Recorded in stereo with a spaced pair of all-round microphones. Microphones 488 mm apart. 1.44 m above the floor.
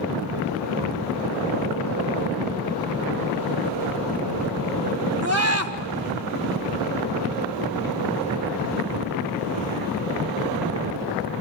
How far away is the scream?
About 1.6 m.